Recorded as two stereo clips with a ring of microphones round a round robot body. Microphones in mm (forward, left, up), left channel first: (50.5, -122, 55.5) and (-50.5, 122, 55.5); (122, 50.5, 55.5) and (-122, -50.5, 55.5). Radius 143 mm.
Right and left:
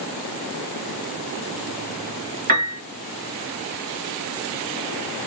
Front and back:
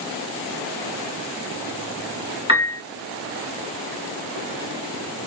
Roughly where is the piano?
Behind left.